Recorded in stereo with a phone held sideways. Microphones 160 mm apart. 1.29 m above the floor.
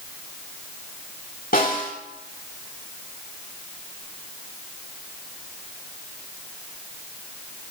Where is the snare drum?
65° left (ahead or behind), 5 m.